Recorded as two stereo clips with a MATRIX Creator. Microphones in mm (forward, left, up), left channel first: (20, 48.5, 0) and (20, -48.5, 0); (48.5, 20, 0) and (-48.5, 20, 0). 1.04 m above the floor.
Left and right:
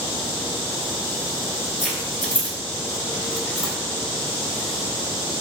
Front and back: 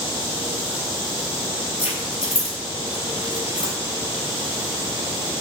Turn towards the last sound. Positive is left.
turn(degrees=15)